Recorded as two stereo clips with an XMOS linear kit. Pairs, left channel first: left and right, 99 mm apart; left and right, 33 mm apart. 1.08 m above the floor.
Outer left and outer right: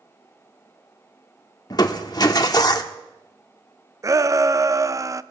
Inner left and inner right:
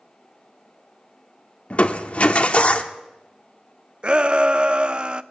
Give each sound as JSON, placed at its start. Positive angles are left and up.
{"t": 1.7, "sound": "crushing", "side_deg": 45, "distance_m": 1.1}
{"t": 4.0, "sound": "a shout", "side_deg": -35, "distance_m": 0.5}